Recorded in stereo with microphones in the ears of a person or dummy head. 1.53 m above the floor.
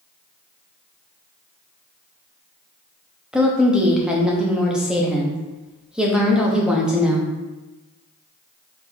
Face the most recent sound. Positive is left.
turn(degrees=5)  # may be behind; listen again after turning